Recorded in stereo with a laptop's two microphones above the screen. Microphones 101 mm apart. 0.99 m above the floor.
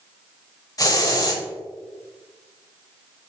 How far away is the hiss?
About 0.9 m.